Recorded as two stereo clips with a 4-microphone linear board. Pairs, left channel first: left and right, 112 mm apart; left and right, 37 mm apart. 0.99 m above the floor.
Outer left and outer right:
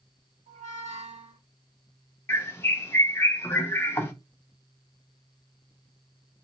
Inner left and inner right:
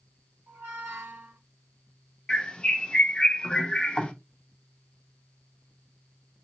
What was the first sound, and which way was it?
A squeak, 80° right.